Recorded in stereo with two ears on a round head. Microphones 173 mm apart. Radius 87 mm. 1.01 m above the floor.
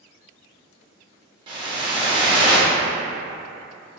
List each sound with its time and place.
1.5 s a whoosh: 25° right (ahead or behind), 0.7 m